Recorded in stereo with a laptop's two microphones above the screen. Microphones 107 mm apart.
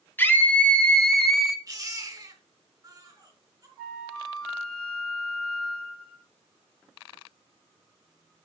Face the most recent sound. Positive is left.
turn(degrees=5)  # may be behind; listen again after turning